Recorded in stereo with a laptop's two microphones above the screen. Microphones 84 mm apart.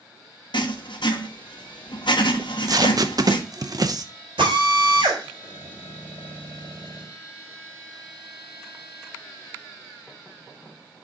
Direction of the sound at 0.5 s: 70° left (ahead or behind).